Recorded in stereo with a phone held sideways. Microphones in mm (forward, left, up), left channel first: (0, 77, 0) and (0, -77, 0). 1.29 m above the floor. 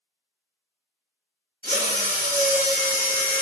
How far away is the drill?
About 1.2 m.